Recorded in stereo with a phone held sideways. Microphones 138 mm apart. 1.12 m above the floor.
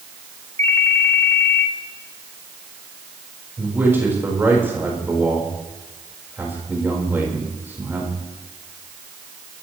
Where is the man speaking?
15° right (ahead or behind), 4.5 m.